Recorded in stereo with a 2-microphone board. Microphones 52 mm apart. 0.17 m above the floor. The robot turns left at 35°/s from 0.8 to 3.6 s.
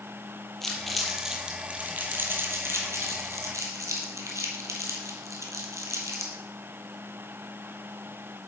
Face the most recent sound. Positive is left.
turn(degrees=-80)